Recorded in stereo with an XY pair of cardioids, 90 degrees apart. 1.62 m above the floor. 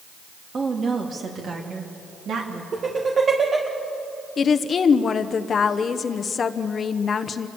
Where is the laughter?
45° right, 2 m.